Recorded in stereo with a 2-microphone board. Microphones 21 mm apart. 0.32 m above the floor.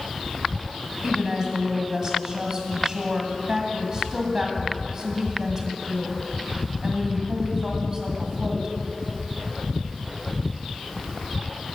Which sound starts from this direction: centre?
A woman speaking, at 1.0 s.